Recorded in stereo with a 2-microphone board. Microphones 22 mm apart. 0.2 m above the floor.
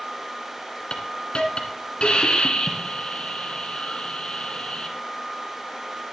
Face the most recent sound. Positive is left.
turn(degrees=55)  # may be behind; listen again after turning